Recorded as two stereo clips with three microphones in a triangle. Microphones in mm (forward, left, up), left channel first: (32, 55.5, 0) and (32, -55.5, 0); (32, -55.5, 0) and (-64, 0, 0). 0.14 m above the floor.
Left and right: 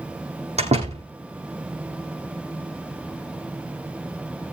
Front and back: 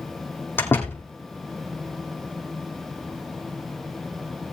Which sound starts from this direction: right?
A door slam, at 0.6 s.